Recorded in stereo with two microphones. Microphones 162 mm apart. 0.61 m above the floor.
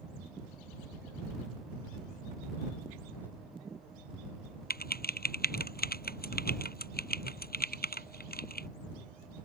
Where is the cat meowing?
No cat meowing in this recording.